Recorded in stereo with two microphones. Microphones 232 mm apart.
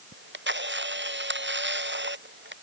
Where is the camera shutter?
50° right (ahead or behind).